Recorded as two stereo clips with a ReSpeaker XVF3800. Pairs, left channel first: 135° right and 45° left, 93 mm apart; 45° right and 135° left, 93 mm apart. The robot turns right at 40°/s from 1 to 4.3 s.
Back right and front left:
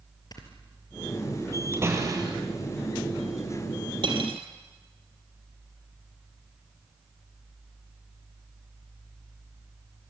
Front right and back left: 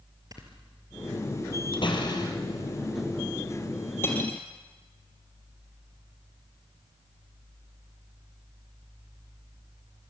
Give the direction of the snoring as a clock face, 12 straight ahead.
6 o'clock.